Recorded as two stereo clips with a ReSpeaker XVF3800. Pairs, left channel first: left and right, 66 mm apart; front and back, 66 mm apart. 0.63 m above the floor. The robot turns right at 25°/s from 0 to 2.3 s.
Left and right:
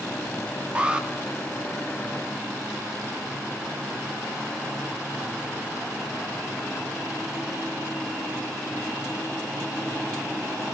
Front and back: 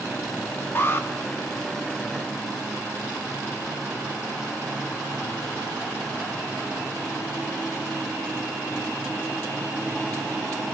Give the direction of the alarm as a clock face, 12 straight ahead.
1 o'clock.